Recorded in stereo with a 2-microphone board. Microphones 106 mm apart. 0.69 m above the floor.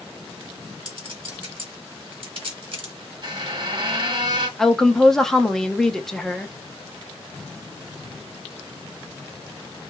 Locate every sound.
0.8 s a clink: 55° right (ahead or behind), 1.2 m
3.2 s a squeak: 45° right (ahead or behind), 1.3 m
4.6 s a woman speaking: 5° left (ahead or behind), 0.6 m